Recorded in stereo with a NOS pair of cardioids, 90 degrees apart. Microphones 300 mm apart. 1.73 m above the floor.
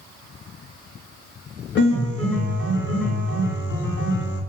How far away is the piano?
About 0.7 m.